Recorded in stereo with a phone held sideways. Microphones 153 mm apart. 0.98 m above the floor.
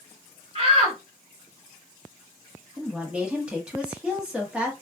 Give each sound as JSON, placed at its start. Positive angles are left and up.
{"t": 0.6, "sound": "a shout", "side_deg": -40, "distance_m": 2.0}
{"t": 2.8, "sound": "a woman speaking", "side_deg": -5, "distance_m": 1.2}